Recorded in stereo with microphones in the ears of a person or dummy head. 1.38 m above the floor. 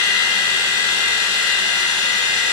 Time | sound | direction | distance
0.0 | a machine running | 35° left (ahead or behind) | 3 m